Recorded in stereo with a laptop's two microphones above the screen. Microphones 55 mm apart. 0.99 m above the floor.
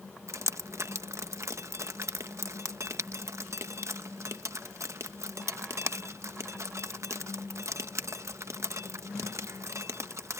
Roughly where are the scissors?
I don't hear scissors.